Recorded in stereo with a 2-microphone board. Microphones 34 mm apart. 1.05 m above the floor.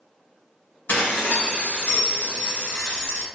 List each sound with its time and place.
0.9 s dishes clattering: 80° left, 1.4 m